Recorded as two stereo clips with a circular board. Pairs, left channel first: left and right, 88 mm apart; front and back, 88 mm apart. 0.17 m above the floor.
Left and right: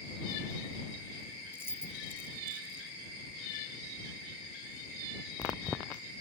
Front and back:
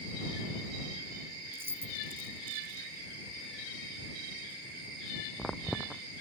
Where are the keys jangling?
135° left.